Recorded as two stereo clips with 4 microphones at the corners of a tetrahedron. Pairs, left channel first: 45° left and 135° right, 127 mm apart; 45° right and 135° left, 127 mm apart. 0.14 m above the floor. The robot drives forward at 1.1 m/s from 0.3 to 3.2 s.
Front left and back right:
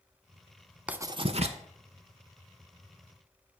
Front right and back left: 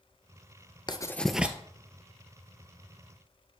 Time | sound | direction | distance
0.9 | writing | 60° right | 0.5 m